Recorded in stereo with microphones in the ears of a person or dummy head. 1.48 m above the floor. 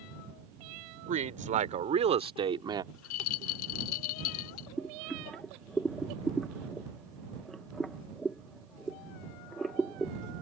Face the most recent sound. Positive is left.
turn(degrees=5)  # may be behind; listen again after turning